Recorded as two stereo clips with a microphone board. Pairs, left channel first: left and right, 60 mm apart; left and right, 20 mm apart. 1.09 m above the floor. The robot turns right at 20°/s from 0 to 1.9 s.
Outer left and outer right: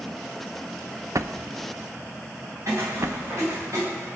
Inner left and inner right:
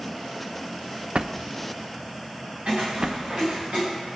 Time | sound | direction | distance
1.1 | a drawer | 60° right (ahead or behind) | 0.5 m
2.7 | footsteps | 65° right (ahead or behind) | 6.5 m